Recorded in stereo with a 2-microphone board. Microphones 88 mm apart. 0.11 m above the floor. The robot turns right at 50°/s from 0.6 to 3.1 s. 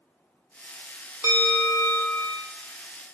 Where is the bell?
25° right, 0.6 m; by 2.3 s 30° left, 0.6 m.